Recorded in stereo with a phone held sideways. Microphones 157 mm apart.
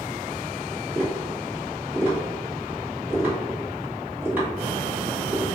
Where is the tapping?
10° right (ahead or behind), 1.9 m.